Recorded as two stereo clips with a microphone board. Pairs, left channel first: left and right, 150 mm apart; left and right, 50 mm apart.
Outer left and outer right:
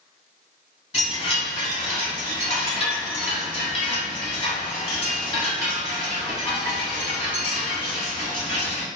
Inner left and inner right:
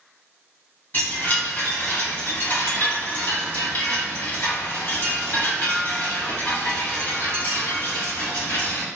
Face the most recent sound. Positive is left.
turn(degrees=40)  # may be behind; listen again after turning